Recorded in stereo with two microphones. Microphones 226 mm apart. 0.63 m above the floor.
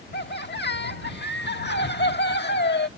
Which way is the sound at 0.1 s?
50° left (ahead or behind).